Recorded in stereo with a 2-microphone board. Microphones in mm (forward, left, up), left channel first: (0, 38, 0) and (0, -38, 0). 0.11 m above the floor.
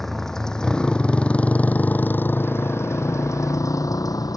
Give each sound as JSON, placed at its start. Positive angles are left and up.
{"t": 0.0, "sound": "a motorcycle", "side_deg": 5}